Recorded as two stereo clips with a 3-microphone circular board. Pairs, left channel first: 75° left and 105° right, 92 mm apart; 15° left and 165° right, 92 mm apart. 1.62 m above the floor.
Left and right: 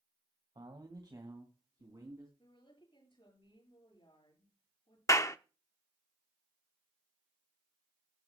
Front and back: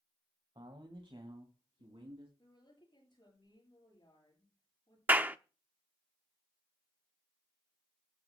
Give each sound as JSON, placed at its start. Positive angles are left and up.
{"t": 0.6, "sound": "a man speaking", "azimuth_deg": -140, "distance_m": 1.6}
{"t": 2.4, "sound": "a woman speaking", "azimuth_deg": 50, "distance_m": 7.5}
{"t": 5.1, "sound": "a clap", "azimuth_deg": 125, "distance_m": 0.6}